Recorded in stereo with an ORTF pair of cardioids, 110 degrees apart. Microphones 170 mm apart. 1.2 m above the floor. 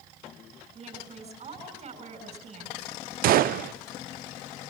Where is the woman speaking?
45° right, 6.5 m.